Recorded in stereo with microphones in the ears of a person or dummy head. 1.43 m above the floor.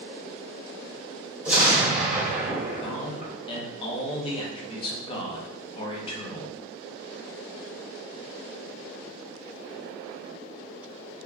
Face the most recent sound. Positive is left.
turn(degrees=25)  # may be behind; listen again after turning